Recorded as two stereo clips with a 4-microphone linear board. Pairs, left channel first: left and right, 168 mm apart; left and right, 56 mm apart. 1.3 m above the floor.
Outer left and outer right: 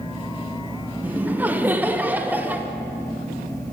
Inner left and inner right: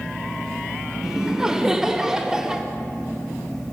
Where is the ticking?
I don't hear ticking.